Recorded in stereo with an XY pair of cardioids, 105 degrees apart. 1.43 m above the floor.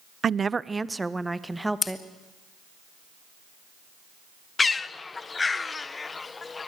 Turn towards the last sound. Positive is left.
turn(degrees=30)